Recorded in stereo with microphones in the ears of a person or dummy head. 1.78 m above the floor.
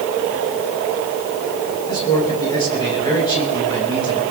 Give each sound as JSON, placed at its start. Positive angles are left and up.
{"t": 1.9, "sound": "a man speaking", "side_deg": 20, "distance_m": 7.0}